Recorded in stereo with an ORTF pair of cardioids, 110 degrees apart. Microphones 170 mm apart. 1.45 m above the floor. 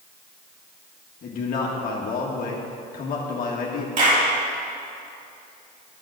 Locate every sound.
1.2 s a man speaking: 55° left, 1.6 m
4.0 s a clap: 45° right, 3.5 m